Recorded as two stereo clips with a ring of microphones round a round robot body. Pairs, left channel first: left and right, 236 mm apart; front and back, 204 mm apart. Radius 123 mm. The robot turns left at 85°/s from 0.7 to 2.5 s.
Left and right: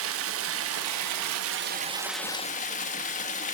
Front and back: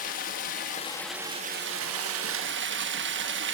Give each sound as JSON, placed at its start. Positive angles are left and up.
{"t": 0.0, "sound": "running water", "azimuth_deg": -55, "distance_m": 1.1}